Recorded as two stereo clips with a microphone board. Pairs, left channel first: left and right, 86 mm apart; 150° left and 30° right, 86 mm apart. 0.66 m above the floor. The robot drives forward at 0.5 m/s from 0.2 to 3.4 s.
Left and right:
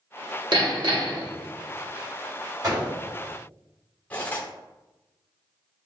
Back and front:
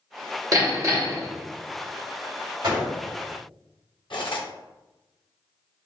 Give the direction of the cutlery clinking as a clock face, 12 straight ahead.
7 o'clock.